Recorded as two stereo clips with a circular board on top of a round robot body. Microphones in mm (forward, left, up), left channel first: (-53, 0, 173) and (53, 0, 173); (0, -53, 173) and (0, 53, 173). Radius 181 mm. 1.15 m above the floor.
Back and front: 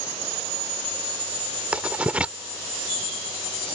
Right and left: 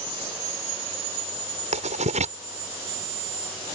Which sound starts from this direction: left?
Writing, at 1.7 s.